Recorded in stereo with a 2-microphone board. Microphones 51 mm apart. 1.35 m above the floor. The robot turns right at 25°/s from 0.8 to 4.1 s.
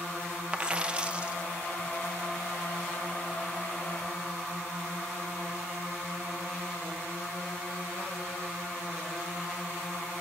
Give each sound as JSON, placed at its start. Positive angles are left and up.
{"t": 0.5, "sound": "a dropped coin", "side_deg": -20, "distance_m": 0.8}